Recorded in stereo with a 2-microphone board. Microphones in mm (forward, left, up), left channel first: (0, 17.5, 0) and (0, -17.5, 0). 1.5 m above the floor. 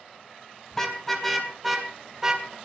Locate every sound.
0.7 s a car horn: 10° left (ahead or behind), 3.5 m; by 2.5 s 20° right (ahead or behind), 3 m